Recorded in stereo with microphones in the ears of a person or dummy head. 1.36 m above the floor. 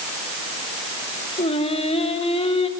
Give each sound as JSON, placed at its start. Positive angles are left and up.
{"t": 1.4, "sound": "singing", "side_deg": 30, "distance_m": 2.0}